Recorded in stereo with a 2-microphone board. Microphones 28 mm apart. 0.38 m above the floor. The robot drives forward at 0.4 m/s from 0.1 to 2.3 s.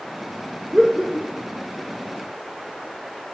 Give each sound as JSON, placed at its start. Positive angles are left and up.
{"t": 0.7, "sound": "laughter", "side_deg": -20, "distance_m": 1.1}